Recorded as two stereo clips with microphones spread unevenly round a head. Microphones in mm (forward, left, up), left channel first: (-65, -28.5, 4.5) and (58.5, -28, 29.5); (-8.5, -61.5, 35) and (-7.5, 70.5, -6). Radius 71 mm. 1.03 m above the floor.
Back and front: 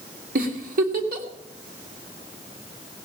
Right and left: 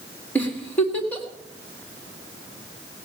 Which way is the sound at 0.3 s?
5° right.